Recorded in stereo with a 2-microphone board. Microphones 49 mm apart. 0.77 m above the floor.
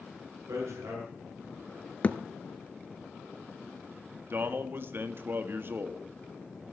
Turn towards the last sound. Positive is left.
turn(degrees=-50)  # may be behind; listen again after turning